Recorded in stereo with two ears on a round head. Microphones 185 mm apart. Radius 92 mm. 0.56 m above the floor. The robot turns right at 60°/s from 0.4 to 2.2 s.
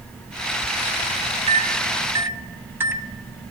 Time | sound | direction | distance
1.5 | a microwave | 25° right (ahead or behind) | 0.9 m